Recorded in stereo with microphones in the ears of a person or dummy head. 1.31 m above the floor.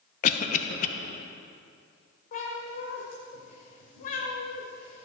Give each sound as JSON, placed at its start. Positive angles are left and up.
{"t": 0.2, "sound": "a cough", "side_deg": 45, "distance_m": 1.1}
{"t": 2.3, "sound": "a cat meowing", "side_deg": 40, "distance_m": 1.7}